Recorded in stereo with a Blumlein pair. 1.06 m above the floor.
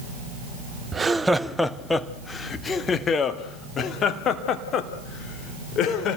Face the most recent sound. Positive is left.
turn(degrees=30)